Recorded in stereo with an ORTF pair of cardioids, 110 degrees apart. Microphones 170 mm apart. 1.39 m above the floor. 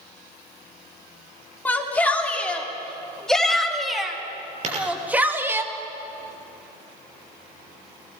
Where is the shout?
10° left, 4 m; by 5.6 s 15° right, 2.5 m.